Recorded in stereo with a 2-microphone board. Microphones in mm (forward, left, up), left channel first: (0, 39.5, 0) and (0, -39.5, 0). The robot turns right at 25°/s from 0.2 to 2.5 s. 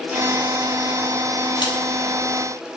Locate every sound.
1.6 s a crack: 70° left (ahead or behind), 3.5 m; by 1.8 s 65° left (ahead or behind), 3.5 m